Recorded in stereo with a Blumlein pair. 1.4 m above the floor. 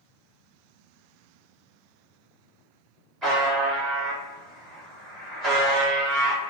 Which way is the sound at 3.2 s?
15° right.